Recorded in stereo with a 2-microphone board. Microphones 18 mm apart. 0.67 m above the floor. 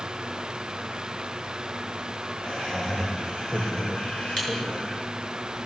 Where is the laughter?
45° left (ahead or behind), 3.5 m; by 5.1 s 65° left (ahead or behind), 2.5 m.